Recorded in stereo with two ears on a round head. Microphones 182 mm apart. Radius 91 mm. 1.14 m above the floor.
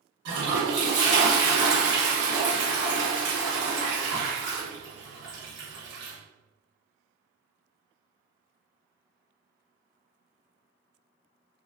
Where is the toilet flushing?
65° right (ahead or behind), 1.3 m.